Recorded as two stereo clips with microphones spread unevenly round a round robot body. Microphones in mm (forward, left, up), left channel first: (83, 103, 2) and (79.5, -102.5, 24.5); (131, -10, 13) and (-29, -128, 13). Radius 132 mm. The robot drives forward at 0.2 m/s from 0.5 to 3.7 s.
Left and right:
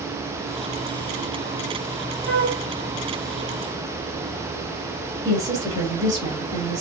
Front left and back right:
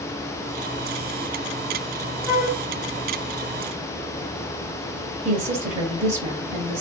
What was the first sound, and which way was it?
A flute, 130° left.